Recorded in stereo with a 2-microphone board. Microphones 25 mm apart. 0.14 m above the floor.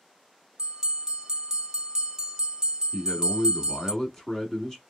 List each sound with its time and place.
0.6 s a bell: 25° right (ahead or behind), 0.6 m
2.9 s a man speaking: 20° left (ahead or behind), 1.1 m